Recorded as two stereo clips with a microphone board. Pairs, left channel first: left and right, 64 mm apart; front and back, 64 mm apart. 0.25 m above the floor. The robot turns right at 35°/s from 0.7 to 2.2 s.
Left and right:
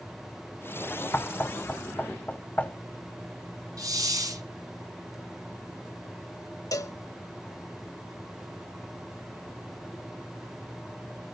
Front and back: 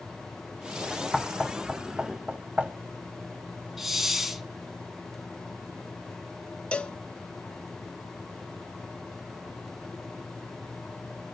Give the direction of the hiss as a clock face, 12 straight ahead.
3 o'clock.